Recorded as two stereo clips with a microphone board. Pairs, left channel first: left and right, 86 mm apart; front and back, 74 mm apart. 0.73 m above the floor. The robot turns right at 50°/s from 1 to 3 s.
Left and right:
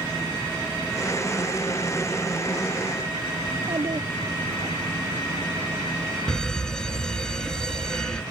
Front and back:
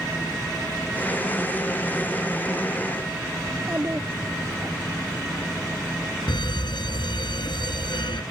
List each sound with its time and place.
3.5 s a child speaking: 120° right
6.3 s a fire alarm: 5° left